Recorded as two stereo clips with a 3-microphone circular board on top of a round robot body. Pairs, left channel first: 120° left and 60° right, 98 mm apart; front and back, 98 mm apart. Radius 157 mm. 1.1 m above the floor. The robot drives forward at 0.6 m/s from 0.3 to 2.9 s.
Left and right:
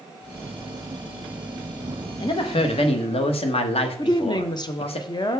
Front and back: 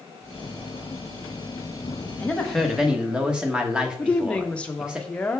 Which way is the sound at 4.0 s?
75° left.